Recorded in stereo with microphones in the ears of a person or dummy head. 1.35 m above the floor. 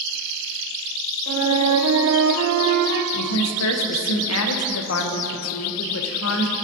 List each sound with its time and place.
1.3 s a flute: 90° right, 0.6 m
3.1 s a woman speaking: 75° left (ahead or behind), 0.7 m